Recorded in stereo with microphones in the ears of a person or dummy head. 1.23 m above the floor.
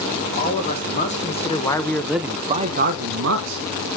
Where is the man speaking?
45° left (ahead or behind), 1.3 m; by 3.7 s 80° right, 0.9 m.